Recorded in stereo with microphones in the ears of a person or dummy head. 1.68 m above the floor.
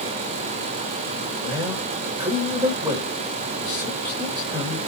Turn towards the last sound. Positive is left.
turn(degrees=-20)  # may be behind; listen again after turning